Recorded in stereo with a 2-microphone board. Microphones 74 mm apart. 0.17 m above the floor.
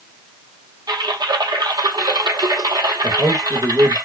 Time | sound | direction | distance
0.9 | typing on a keyboard | 85° right | 1.0 m
3.0 | a man speaking | 60° right (ahead or behind) | 3.5 m